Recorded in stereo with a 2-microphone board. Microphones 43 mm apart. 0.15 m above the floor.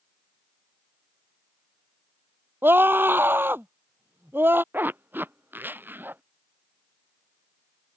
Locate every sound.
2.6 s a scream: 65° right (ahead or behind)
4.7 s a zipper: 60° right (ahead or behind)